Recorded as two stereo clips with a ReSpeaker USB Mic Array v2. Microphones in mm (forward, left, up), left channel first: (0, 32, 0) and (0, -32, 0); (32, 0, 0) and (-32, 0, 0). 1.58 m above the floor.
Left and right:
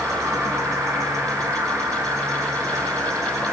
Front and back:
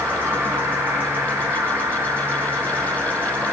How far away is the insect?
About 0.8 m.